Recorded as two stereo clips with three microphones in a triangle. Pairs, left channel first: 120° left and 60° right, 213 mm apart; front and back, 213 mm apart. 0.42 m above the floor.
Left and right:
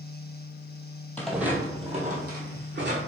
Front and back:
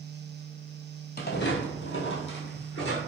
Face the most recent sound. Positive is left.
turn(degrees=-35)